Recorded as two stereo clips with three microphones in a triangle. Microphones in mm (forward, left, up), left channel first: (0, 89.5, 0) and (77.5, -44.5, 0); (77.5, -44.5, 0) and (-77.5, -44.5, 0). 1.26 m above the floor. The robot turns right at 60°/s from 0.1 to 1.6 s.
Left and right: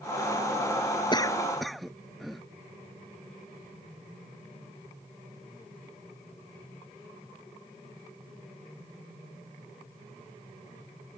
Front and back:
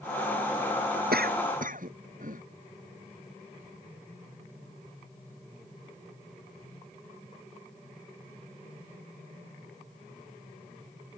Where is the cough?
Straight behind; by 2.4 s 150° right.